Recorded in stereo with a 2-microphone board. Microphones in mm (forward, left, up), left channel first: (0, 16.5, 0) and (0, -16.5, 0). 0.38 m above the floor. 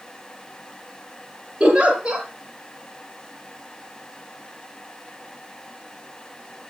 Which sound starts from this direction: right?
A giggle, at 1.6 s.